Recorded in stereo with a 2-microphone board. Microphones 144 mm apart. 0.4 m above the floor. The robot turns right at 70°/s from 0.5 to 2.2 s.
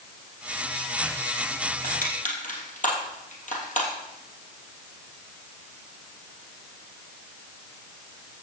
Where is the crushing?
85° left, 3 m; by 3.9 s 70° left (ahead or behind), 3 m.